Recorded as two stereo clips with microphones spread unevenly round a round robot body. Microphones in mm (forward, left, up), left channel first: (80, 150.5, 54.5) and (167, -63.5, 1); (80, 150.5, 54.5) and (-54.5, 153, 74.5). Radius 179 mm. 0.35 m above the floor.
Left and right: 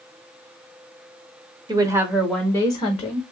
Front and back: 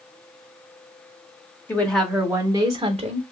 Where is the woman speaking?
50° right, 0.9 m; by 3.2 s 175° left, 0.9 m.